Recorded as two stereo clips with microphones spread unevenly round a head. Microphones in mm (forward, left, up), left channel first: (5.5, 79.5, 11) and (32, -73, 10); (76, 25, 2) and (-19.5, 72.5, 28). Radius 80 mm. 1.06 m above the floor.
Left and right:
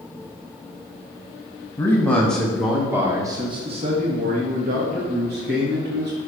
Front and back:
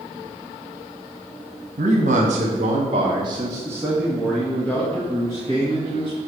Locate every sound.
1.8 s a man speaking: 175° left, 1.6 m; by 6.2 s 70° right, 2 m